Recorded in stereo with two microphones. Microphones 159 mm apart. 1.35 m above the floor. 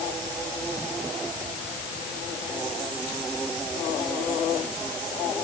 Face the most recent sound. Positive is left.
No sound to turn to.